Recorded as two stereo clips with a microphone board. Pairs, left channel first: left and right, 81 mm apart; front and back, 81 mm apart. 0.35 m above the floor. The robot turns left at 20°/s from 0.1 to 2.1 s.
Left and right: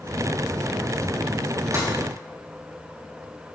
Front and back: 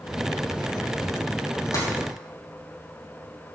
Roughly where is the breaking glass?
Ahead right.